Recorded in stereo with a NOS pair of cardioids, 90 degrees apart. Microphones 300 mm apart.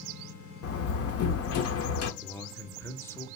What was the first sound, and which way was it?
A door slam, 55° left.